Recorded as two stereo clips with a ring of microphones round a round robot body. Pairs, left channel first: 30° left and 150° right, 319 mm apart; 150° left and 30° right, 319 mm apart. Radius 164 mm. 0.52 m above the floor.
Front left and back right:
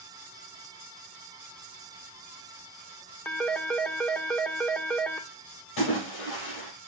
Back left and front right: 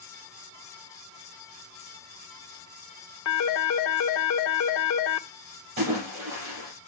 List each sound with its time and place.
3.2 s a phone ringing: 115° left, 0.9 m
5.8 s a splash: 10° left, 7.5 m